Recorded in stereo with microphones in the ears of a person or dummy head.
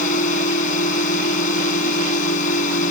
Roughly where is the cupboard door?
No cupboard door in this recording.